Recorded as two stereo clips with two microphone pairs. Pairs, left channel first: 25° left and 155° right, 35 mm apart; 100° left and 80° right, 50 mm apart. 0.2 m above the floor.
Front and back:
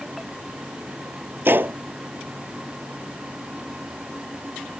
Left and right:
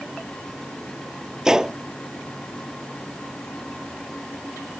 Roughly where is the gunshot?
Behind.